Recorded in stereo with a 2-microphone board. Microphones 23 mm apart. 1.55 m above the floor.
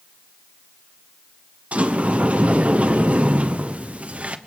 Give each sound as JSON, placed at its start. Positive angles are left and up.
{"t": 1.7, "sound": "a sliding door", "side_deg": -65, "distance_m": 0.9}